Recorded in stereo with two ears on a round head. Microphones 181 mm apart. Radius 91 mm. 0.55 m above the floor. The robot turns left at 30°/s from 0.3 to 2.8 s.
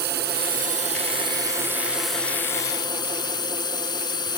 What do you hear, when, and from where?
0.0 s a drone: 125° right; by 4.4 s 160° left